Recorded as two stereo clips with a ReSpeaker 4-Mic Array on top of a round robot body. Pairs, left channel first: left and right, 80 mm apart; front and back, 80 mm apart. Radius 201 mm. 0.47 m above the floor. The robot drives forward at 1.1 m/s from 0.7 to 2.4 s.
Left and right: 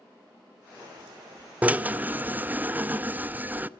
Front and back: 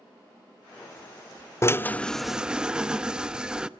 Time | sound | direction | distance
1.6 | a drill | 30° right | 1.3 m